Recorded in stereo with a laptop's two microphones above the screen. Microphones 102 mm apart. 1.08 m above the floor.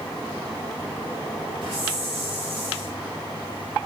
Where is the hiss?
60° right (ahead or behind), 2 m.